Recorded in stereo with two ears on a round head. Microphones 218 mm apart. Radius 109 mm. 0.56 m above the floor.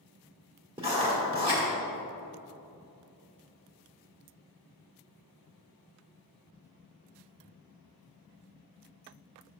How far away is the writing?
About 1.6 m.